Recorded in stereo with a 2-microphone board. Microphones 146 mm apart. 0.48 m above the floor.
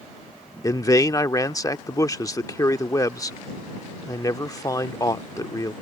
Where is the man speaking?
25° left (ahead or behind).